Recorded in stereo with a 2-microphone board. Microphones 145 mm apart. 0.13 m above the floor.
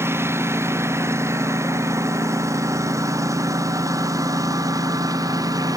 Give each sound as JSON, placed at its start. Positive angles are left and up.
{"t": 0.0, "sound": "a lawn mower", "side_deg": -15}